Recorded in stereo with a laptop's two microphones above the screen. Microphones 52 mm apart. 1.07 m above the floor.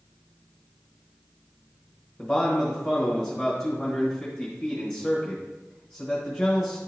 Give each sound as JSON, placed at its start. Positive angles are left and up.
{"t": 2.2, "sound": "a man speaking", "side_deg": 15, "distance_m": 1.2}